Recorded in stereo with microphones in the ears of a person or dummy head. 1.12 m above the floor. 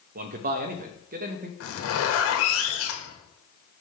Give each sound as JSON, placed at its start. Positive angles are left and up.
{"t": 0.1, "sound": "a man speaking", "side_deg": -55, "distance_m": 0.9}
{"t": 1.6, "sound": "a zipper", "side_deg": 65, "distance_m": 1.8}